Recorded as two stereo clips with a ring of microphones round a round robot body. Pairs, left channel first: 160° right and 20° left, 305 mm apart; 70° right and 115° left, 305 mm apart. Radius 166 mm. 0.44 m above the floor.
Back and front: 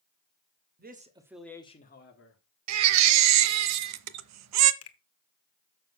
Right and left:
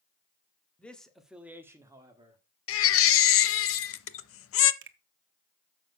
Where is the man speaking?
15° left, 1.5 m; by 2.4 s 175° right, 1.8 m.